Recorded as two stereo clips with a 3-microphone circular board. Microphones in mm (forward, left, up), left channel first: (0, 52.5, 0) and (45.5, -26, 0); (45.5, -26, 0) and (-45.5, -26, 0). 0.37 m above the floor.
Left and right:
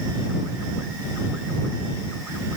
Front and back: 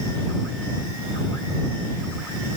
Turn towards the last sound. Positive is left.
No sound to turn to.